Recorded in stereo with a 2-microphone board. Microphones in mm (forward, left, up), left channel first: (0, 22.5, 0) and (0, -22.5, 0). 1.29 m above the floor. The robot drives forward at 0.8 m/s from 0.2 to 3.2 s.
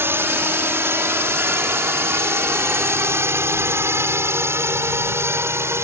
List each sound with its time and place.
0.0 s a drone: 60° right (ahead or behind); by 5.9 s 75° right (ahead or behind)